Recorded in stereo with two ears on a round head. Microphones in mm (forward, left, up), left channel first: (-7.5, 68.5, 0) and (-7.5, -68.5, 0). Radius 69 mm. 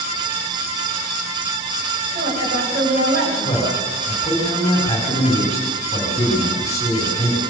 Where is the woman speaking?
65° right (ahead or behind), 9 m.